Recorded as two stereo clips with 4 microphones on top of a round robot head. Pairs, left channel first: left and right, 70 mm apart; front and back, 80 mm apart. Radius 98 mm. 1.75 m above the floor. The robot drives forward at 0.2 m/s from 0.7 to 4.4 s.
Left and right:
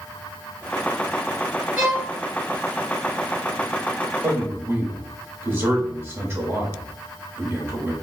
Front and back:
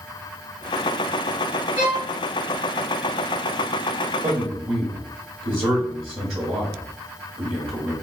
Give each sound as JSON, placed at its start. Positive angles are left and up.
{"t": 1.8, "sound": "a violin", "azimuth_deg": -150, "distance_m": 1.8}
{"t": 4.2, "sound": "a man speaking", "azimuth_deg": -145, "distance_m": 1.2}